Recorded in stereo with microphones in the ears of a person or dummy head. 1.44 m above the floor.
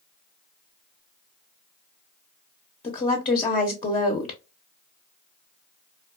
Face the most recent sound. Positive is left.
turn(degrees=30)  # may be behind; listen again after turning